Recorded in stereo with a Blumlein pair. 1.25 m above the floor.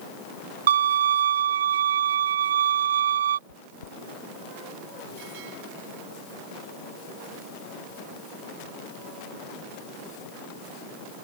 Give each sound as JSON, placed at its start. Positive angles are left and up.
{"t": 0.7, "sound": "a violin", "azimuth_deg": -60}
{"t": 3.5, "sound": "chewing", "azimuth_deg": 70}